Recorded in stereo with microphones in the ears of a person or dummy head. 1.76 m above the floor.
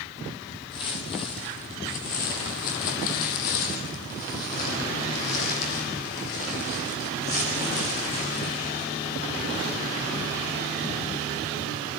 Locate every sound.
0.7 s footsteps: 25° left (ahead or behind), 2.5 m; by 8.8 s 45° left (ahead or behind), 5.5 m